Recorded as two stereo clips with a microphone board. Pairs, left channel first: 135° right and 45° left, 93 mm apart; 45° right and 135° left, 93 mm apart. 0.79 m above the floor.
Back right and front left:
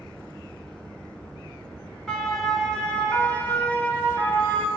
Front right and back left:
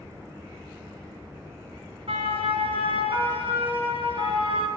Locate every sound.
2.1 s a siren: 140° left, 6.5 m; by 4.7 s 150° left, 8 m